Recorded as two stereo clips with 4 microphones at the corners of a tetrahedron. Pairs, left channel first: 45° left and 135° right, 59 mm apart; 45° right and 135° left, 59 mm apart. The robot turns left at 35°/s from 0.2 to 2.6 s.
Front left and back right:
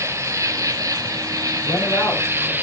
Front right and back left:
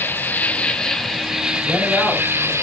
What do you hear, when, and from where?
0.0 s an insect: 105° right, 0.9 m; by 2.6 s 170° left, 0.9 m
1.6 s a man speaking: 55° left, 5.5 m; by 2.5 s 25° left, 5.5 m